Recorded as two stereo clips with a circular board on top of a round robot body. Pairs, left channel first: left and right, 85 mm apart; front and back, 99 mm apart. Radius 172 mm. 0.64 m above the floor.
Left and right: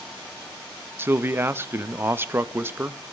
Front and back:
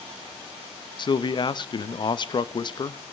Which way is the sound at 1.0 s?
30° right.